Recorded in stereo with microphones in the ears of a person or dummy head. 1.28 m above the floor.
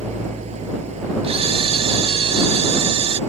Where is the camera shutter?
30° right (ahead or behind).